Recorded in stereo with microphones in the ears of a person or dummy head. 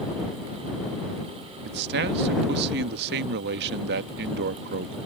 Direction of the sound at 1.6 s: 55° right (ahead or behind).